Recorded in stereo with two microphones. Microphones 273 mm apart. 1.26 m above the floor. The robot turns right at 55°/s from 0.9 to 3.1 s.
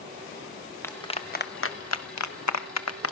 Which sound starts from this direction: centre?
A clap, at 0.8 s.